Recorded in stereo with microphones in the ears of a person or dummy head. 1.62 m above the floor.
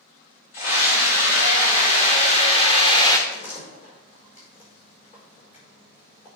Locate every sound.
0.5 s a scream: 45° left (ahead or behind), 4 m; by 3.2 s 15° left (ahead or behind), 0.8 m
3.3 s a door slam: 45° left (ahead or behind), 4.5 m